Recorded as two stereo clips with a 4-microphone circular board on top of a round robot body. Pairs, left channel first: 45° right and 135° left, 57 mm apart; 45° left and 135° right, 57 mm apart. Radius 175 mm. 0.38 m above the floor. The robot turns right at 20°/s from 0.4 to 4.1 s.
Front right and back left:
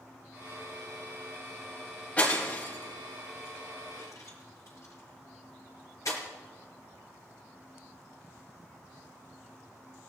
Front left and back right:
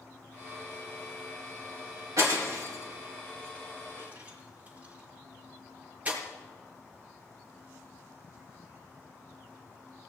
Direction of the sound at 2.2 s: 110° right.